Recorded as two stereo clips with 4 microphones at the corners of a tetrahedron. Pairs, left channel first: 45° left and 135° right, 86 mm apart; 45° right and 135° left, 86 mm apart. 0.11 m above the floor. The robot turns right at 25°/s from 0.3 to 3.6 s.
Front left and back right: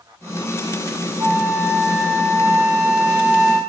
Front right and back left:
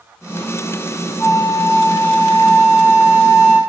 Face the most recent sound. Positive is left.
turn(degrees=-45)